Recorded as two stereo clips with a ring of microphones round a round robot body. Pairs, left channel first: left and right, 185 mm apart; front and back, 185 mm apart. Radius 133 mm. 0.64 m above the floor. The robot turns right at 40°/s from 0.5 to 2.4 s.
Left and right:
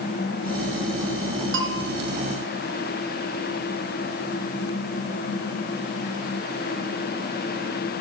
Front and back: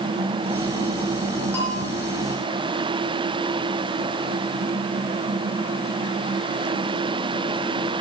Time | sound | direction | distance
1.5 | a bell | 85° right | 3 m